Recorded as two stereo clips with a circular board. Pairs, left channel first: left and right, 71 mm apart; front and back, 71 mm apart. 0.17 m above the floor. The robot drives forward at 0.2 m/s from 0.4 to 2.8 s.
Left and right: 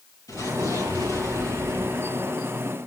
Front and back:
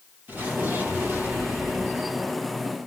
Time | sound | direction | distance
0.3 | an explosion | 120° left | 5 m